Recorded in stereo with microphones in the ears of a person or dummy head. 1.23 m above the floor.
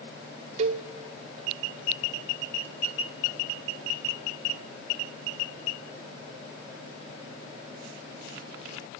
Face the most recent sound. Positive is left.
turn(degrees=-45)  # may be behind; listen again after turning